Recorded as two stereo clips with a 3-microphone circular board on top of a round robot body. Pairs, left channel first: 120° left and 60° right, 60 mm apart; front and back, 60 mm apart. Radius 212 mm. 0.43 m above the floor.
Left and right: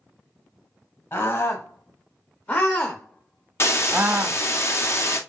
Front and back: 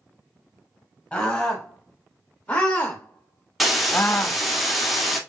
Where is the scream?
80° left, 3 m; by 4.4 s 55° right, 1.4 m.